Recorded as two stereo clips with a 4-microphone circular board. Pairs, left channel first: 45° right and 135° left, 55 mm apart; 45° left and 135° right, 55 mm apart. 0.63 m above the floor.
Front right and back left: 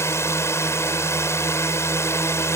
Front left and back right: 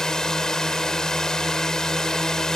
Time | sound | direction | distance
0.0 | a drone | 30° right | ?